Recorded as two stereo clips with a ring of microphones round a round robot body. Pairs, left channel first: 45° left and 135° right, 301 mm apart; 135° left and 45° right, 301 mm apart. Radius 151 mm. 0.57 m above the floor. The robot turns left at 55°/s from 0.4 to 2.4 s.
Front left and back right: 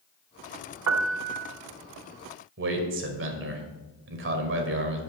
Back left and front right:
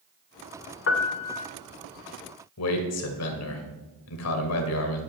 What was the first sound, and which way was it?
A piano, 175° right.